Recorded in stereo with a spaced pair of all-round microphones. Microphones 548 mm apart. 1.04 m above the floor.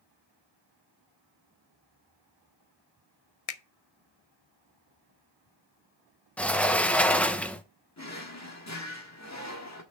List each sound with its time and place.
3.5 s a finger snap: 80° left, 0.7 m
6.4 s a sliding door: centre (ahead or behind), 0.7 m
8.0 s a drawer: 30° left (ahead or behind), 1.4 m